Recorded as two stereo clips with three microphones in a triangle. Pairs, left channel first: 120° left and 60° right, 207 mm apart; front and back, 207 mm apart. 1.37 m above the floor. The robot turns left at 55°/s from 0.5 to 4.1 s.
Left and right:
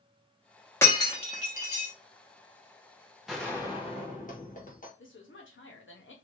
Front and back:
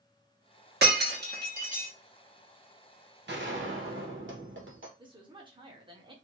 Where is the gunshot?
145° right, 1.0 m; by 4.9 s 165° left, 1.0 m.